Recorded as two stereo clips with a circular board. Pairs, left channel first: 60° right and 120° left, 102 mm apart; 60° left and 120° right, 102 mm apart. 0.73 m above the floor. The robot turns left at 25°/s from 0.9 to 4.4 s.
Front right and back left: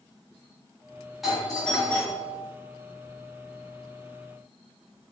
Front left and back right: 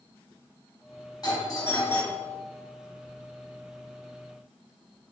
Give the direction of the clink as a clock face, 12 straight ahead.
I don't hear a clink.